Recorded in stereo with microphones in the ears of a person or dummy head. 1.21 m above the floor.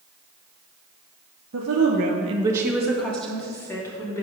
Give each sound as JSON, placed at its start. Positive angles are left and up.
{"t": 1.5, "sound": "a woman speaking", "side_deg": -75, "distance_m": 1.2}